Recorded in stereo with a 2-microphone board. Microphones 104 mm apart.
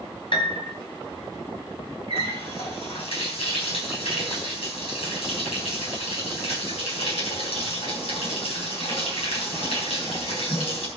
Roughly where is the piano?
Left.